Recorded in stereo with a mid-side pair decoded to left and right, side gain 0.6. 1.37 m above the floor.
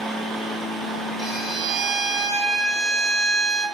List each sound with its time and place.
0.0 s a fan: 35° right, 1.2 m
1.2 s a violin: 45° right, 2 m